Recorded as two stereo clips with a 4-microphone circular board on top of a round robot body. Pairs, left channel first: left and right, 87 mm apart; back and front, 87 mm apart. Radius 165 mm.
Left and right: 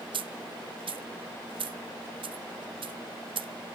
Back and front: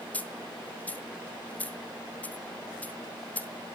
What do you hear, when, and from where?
0.1 s a dropped coin: 105° right, 0.7 m